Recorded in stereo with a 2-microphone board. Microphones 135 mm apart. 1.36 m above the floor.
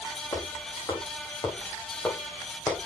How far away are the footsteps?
About 5.5 m.